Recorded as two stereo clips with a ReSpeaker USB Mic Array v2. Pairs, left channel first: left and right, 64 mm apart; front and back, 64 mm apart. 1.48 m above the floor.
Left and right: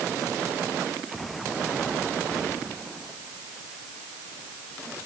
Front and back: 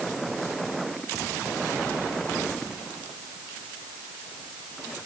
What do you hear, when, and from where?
Only background noise.